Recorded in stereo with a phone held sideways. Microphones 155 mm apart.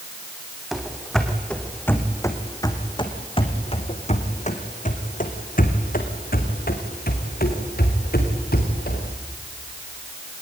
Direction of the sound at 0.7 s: Centre (ahead or behind).